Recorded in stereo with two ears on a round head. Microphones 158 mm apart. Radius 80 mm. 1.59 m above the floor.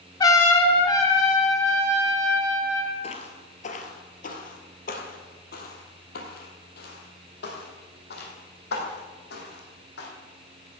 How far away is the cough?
No cough in this recording.